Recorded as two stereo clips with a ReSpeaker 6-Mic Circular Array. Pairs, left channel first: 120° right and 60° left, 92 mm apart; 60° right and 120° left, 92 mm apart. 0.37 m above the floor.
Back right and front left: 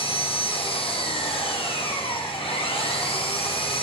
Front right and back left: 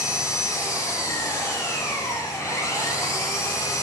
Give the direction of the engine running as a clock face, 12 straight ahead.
4 o'clock.